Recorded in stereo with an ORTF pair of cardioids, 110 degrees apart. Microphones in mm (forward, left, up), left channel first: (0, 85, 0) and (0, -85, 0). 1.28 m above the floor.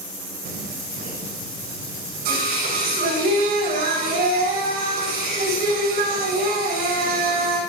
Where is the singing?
65° right, 7.5 m.